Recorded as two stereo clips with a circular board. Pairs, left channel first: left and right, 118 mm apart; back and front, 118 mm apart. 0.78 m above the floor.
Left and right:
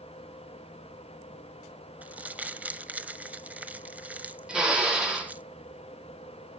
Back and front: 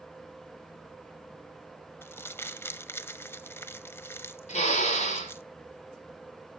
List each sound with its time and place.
2.0 s crumpling: 150° right, 0.6 m
4.5 s a drill: 175° right, 3 m